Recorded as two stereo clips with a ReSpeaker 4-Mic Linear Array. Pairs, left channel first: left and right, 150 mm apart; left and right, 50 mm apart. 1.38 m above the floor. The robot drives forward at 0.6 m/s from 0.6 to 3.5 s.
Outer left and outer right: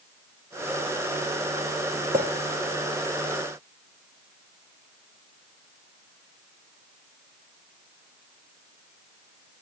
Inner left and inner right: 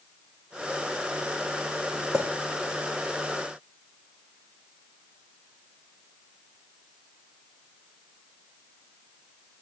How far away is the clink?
About 2.5 m.